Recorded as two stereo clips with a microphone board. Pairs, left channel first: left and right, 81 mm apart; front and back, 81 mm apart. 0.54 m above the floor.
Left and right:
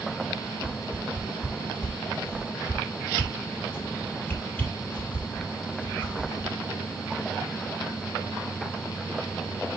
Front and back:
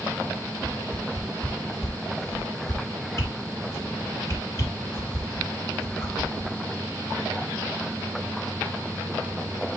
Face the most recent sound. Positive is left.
turn(degrees=30)